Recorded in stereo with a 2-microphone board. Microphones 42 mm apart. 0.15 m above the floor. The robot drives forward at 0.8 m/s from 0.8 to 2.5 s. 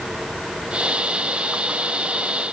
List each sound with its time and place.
Only background noise.